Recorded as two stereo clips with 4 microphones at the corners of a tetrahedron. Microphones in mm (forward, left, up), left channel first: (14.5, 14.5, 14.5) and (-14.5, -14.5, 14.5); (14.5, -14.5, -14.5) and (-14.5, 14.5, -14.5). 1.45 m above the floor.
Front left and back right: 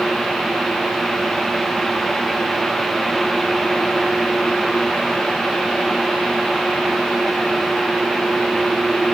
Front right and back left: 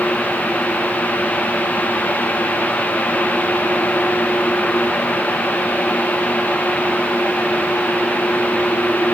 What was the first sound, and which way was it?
Only background noise.